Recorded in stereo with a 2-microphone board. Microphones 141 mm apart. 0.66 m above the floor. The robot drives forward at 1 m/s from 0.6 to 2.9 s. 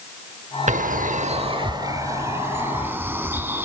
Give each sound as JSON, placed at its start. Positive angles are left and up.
{"t": 0.7, "sound": "a bird", "side_deg": -60, "distance_m": 0.6}